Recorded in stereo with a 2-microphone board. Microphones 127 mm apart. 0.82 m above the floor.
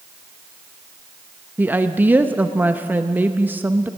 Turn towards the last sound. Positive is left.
turn(degrees=-15)  # may be behind; listen again after turning